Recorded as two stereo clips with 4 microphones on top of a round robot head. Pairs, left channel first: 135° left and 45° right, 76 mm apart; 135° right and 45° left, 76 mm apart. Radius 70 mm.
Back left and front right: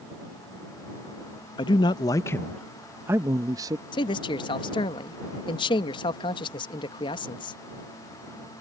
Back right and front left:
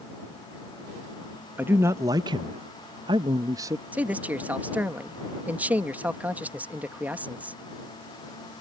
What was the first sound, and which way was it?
A man speaking, 115° left.